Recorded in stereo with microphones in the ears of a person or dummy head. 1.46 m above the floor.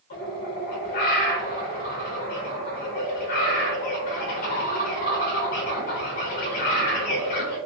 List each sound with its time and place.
0.1 s a bird: 30° left (ahead or behind), 0.7 m